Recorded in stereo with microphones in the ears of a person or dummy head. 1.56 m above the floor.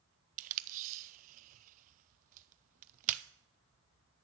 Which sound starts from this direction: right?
Tape being pulled, at 0.4 s.